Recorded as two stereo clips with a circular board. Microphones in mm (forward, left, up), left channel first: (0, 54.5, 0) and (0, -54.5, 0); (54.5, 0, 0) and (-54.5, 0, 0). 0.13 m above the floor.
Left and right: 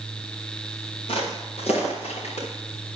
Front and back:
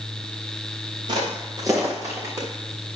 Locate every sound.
1.1 s footsteps: 130° left, 3.5 m; by 2.5 s 110° left, 4.5 m